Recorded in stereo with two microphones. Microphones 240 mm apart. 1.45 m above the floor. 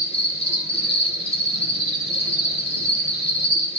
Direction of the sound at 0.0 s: 25° left (ahead or behind).